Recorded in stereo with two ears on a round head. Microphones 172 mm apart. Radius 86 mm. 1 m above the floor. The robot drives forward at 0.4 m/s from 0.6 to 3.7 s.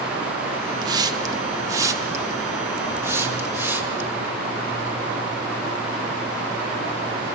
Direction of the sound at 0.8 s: 20° right (ahead or behind).